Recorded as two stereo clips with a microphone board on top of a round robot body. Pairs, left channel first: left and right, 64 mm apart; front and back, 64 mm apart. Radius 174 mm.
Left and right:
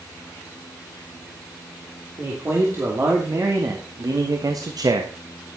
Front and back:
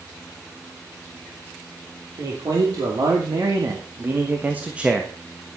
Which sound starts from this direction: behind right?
A man speaking, at 2.2 s.